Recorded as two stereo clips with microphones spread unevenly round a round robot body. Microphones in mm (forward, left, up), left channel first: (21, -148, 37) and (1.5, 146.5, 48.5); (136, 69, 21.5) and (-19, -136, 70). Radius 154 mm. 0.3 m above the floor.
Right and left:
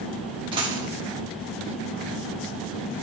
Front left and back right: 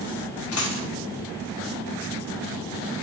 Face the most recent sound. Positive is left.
turn(degrees=20)